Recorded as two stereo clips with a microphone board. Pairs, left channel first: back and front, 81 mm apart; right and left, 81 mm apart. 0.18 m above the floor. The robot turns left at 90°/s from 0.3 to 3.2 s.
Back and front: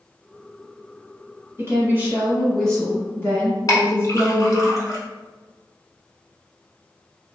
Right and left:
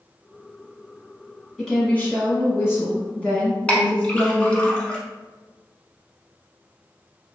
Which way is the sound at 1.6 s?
5° right.